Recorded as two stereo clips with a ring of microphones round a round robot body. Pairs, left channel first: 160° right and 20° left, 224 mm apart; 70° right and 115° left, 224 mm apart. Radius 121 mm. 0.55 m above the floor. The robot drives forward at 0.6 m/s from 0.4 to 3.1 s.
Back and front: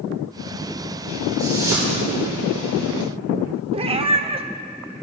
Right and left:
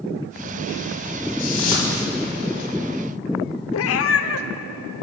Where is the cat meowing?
45° right, 0.8 m.